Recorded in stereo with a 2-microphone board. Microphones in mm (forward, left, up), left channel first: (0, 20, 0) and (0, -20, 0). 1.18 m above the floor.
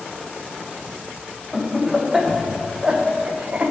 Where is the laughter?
5° right (ahead or behind), 1.5 m; by 3.7 s 45° right (ahead or behind), 0.8 m.